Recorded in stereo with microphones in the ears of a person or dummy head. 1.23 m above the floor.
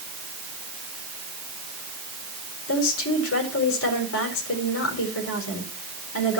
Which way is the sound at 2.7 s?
85° left.